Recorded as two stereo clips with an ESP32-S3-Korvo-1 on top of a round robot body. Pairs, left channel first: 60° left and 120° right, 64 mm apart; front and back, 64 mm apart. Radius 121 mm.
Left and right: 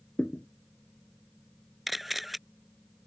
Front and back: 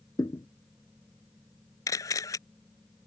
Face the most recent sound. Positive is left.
turn(degrees=-30)